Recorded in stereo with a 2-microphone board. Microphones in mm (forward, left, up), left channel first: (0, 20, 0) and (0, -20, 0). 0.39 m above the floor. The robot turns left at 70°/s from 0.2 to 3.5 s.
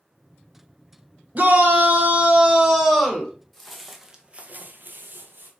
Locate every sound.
1.4 s a shout: 65° right, 1.0 m; by 3.3 s 155° left, 1.0 m
3.5 s footsteps: 5° left (ahead or behind), 0.9 m; by 5.5 s 55° right (ahead or behind), 0.9 m